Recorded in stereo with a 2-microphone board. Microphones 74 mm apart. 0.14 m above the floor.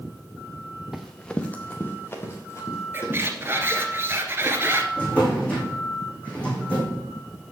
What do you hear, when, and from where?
0.9 s running footsteps: centre (ahead or behind), 1.0 m; by 3.7 s 40° left (ahead or behind), 4.5 m
2.9 s a squeak: 30° right (ahead or behind), 1.2 m
5.0 s a drawer: 20° left (ahead or behind), 2.5 m